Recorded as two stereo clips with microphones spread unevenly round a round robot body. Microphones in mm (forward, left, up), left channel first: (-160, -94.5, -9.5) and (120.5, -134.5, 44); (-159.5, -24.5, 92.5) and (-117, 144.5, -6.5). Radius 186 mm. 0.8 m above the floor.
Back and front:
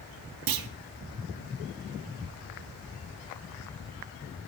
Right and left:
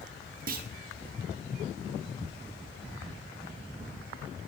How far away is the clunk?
About 0.7 m.